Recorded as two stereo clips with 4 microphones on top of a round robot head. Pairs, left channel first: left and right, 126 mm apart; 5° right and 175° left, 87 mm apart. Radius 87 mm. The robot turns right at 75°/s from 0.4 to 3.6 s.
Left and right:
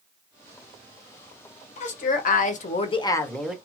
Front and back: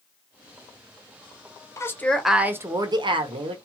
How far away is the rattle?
I don't hear a rattle.